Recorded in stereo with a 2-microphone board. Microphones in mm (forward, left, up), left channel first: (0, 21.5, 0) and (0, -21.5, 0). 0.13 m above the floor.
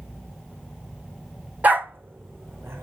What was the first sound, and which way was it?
A dog barking, 40° right (ahead or behind).